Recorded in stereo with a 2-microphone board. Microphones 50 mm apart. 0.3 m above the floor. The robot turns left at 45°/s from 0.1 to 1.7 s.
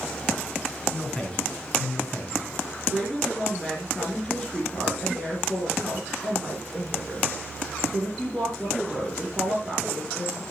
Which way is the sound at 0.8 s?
170° left.